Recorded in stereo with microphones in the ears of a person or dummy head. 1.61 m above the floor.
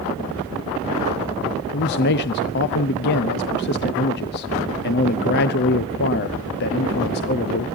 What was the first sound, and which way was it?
A man speaking, 50° left (ahead or behind).